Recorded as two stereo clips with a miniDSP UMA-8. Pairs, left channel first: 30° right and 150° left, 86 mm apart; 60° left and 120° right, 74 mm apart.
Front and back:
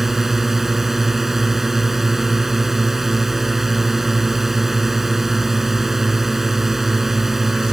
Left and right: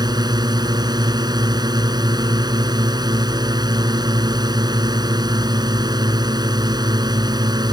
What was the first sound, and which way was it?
A drone, 125° right.